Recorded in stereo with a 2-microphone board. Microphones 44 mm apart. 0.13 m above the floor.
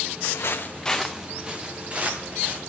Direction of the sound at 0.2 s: 80° left.